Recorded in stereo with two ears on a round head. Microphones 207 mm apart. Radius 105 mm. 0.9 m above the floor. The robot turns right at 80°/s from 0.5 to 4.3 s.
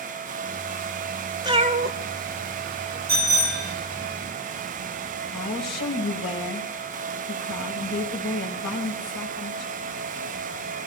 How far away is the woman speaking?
About 5.5 m.